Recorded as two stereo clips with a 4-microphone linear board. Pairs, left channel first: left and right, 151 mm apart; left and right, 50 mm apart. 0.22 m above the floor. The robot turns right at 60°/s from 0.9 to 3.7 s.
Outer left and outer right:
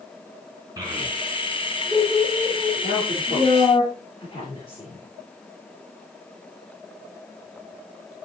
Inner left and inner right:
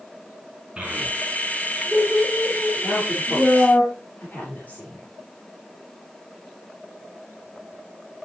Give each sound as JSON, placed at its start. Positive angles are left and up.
{"t": 0.8, "sound": "a child speaking", "side_deg": -25, "distance_m": 2.0}
{"t": 2.8, "sound": "a woman speaking", "side_deg": 75, "distance_m": 4.0}